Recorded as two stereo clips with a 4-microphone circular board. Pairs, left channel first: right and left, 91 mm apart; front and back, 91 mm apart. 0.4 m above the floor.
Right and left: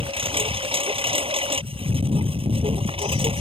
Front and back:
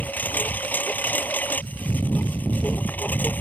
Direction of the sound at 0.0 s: 75° left.